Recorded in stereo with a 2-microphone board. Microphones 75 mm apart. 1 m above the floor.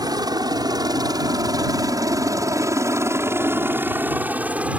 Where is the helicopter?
65° right (ahead or behind); by 4.8 s 20° right (ahead or behind).